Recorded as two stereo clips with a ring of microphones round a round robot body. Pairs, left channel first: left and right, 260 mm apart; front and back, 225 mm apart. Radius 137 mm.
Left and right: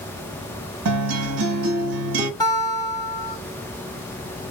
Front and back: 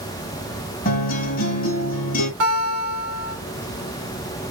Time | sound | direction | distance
0.8 | a guitar | 60° right | 0.9 m
2.4 | a guitar | 165° left | 2.0 m